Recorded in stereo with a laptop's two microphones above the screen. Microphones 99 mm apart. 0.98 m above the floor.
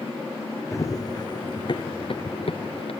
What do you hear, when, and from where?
0.7 s running footsteps: 30° left (ahead or behind); by 2.9 s 65° left (ahead or behind)